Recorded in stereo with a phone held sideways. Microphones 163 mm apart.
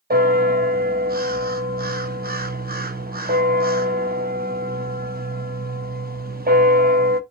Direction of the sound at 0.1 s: 65° right (ahead or behind).